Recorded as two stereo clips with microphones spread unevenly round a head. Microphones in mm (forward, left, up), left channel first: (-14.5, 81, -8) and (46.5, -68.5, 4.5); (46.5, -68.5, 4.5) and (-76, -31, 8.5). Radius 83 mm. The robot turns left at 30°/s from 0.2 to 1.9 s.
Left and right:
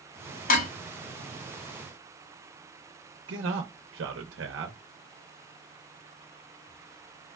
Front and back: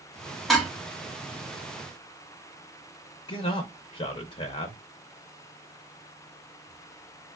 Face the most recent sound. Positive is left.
turn(degrees=-60)